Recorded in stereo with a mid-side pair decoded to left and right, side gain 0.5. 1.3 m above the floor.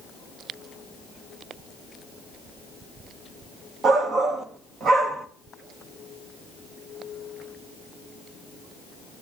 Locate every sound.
3.8 s a shout: 45° right, 2.0 m